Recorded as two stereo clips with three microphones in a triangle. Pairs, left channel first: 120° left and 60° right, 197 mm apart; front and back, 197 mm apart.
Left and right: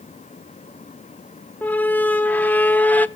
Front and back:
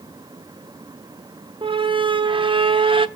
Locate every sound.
1.6 s a squeak: 170° right, 0.5 m